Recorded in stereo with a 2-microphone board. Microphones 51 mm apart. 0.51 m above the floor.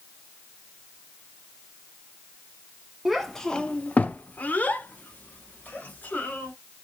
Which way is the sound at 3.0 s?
Centre (ahead or behind).